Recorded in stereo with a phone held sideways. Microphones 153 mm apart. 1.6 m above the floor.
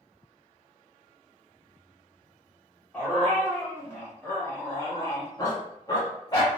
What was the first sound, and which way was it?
A dog barking, 10° left (ahead or behind).